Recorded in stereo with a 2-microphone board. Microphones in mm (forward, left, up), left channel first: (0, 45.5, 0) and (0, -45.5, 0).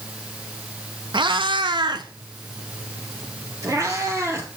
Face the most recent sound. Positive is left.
turn(degrees=-30)  # may be behind; listen again after turning